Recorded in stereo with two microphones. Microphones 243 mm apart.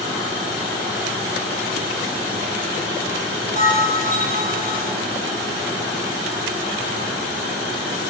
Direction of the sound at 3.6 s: 35° right (ahead or behind).